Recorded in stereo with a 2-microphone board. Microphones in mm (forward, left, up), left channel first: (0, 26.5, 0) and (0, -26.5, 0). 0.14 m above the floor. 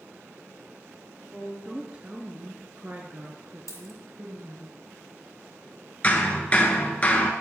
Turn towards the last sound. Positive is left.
turn(degrees=25)  # may be behind; listen again after turning